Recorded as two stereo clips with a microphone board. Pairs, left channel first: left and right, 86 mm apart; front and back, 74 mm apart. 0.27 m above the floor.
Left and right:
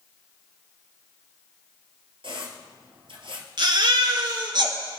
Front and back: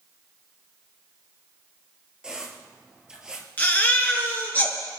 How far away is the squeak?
About 2 m.